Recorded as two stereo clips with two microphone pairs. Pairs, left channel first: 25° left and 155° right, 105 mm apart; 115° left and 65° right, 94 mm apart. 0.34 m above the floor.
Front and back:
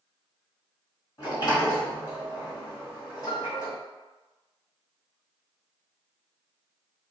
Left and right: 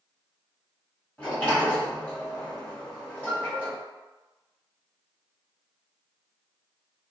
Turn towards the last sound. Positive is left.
turn(degrees=50)